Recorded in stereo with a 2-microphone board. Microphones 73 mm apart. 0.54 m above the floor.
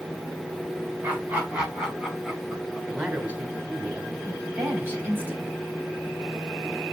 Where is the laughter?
25° right (ahead or behind), 3.5 m; by 2.8 s 5° right (ahead or behind), 5 m.